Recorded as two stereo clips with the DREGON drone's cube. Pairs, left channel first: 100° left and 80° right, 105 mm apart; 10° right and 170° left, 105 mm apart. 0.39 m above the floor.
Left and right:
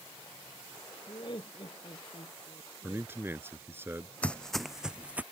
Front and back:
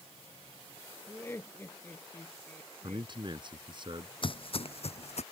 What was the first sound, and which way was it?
Laughter, 60° left.